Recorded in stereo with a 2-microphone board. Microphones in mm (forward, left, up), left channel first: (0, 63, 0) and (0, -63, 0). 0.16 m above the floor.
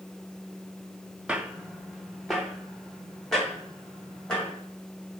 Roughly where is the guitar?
No guitar in this recording.